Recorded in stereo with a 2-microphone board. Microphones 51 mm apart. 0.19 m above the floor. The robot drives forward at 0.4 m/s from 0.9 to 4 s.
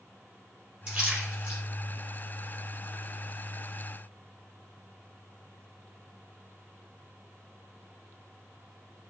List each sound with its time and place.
0.9 s a splash: 20° right (ahead or behind), 3.5 m